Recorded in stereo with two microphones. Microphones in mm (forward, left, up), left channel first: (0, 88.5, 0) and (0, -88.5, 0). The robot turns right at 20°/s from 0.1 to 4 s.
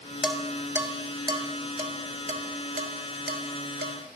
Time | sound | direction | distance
0.2 | dishes clattering | 5° right (ahead or behind) | 1.5 m